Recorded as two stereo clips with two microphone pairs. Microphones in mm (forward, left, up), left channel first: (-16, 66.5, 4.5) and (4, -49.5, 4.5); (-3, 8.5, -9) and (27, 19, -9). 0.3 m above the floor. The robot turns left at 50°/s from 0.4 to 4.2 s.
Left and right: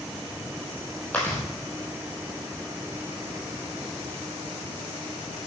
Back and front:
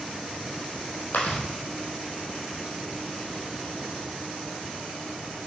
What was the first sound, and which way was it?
Chewing, 175° left.